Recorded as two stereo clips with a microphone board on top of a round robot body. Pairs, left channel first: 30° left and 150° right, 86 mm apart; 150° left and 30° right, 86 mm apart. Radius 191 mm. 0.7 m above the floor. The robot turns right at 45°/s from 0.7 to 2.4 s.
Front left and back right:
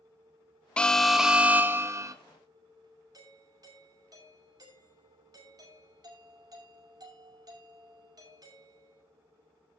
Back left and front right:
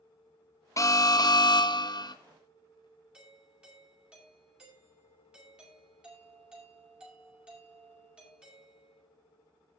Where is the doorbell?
110° right, 6 m.